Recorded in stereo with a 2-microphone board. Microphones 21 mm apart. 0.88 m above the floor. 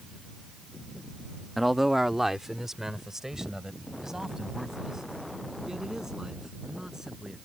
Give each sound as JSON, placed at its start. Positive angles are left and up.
{"t": 1.6, "sound": "a man speaking", "side_deg": 0}